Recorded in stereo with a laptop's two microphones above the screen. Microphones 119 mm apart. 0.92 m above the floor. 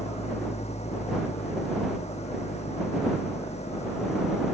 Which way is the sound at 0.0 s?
65° left (ahead or behind).